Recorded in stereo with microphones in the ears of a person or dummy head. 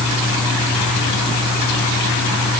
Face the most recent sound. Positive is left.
No sound to turn to.